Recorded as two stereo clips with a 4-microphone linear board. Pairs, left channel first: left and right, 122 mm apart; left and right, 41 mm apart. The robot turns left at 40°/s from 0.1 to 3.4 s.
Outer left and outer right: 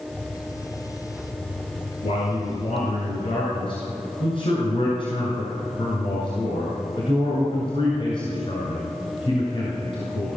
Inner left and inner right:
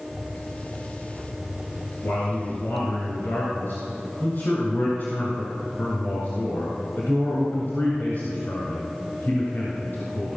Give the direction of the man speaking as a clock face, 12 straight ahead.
8 o'clock.